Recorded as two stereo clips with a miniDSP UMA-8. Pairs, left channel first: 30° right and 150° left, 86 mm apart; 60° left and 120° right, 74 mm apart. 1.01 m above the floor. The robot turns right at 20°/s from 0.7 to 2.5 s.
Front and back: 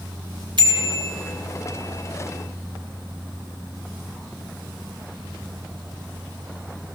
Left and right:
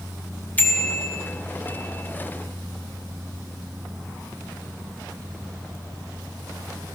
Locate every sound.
0.6 s a bicycle bell: 125° left, 2.5 m; by 1.1 s 135° left, 2.5 m